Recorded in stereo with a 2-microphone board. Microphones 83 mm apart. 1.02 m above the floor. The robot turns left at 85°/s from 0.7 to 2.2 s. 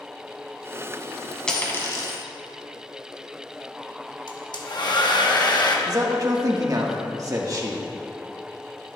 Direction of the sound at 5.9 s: 45° right (ahead or behind).